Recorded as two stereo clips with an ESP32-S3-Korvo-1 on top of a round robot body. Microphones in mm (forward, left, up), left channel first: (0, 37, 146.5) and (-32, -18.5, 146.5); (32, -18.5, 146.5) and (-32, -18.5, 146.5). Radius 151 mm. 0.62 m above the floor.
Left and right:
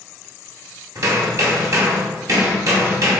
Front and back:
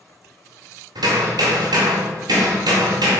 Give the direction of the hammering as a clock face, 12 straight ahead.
5 o'clock.